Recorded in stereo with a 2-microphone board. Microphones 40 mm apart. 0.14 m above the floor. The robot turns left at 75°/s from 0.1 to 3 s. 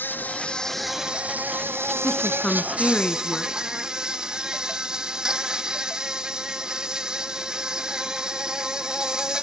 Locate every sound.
0.0 s an insect: 55° left, 1.0 m; by 9.4 s 165° right, 1.0 m
2.0 s a woman speaking: 20° left (ahead or behind), 1.1 m